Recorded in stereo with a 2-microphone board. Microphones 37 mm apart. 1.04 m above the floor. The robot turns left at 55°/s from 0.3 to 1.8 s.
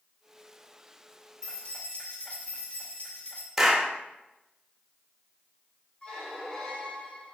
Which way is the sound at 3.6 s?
10° right (ahead or behind).